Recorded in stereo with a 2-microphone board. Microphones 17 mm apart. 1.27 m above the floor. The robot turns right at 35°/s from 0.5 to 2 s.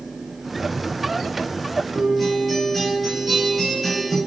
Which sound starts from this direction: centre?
A guitar, at 1.9 s.